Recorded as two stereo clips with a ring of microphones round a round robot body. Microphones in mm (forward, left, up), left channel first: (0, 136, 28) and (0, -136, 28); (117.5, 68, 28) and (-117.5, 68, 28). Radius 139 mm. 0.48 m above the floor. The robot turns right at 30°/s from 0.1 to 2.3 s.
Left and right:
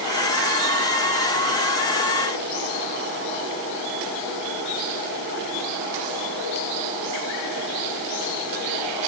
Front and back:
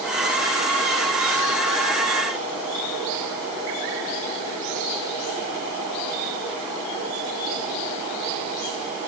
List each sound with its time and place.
Only background noise.